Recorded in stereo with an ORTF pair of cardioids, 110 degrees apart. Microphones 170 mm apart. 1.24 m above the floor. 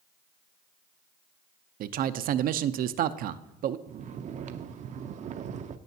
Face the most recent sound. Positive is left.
turn(degrees=-50)